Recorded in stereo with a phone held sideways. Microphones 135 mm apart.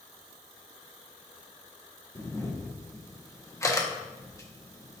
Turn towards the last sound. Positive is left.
turn(degrees=20)  # may be behind; listen again after turning